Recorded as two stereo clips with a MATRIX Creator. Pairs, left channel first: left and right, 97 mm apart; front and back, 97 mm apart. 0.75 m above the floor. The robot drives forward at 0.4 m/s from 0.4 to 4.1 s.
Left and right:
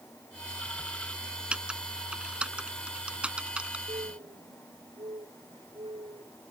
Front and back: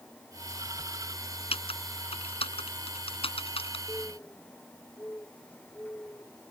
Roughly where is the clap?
I don't hear a clap.